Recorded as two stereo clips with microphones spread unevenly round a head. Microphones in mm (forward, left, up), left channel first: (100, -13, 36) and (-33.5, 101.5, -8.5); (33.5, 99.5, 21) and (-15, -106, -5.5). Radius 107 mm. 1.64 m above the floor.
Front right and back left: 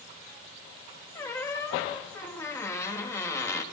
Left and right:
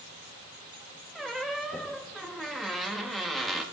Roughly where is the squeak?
Ahead.